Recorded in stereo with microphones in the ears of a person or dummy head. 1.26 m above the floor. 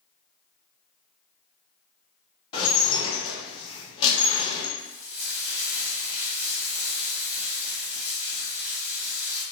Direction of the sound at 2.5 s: 25° left (ahead or behind).